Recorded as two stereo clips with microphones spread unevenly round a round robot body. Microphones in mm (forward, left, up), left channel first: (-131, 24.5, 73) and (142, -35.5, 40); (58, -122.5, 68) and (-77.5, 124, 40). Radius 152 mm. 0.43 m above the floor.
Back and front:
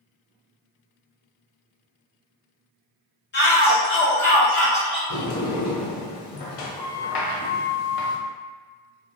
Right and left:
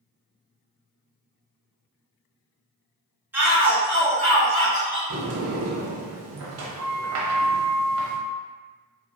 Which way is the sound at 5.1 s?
160° left.